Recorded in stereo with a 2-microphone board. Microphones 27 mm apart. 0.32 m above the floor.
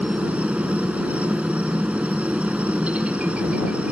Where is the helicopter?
55° right (ahead or behind).